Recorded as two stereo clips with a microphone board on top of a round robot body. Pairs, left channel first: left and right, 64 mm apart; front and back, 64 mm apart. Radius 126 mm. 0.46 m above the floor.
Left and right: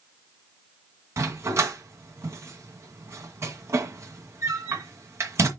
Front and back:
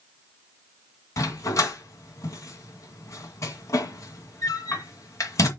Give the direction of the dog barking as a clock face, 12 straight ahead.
1 o'clock.